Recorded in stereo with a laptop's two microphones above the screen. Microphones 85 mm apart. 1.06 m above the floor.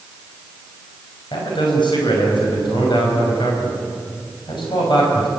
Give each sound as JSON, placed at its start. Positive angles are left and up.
{"t": 1.3, "sound": "a man speaking", "side_deg": 65, "distance_m": 6.0}